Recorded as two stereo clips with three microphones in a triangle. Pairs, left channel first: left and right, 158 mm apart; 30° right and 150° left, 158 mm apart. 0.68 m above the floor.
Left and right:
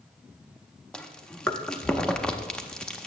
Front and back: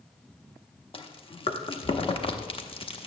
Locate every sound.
0.9 s chewing: 5° left, 0.8 m